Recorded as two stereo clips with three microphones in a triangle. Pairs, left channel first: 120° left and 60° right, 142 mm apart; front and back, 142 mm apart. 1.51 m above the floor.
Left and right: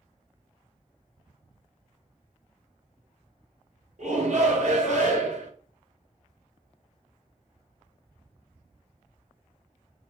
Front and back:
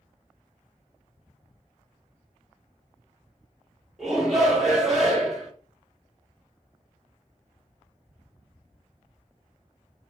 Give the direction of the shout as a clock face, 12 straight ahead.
3 o'clock.